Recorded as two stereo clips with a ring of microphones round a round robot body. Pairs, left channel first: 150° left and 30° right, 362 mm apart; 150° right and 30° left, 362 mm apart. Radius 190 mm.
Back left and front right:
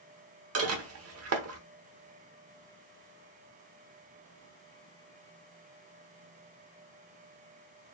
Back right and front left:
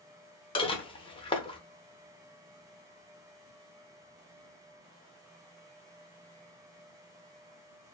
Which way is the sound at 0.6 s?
75° right.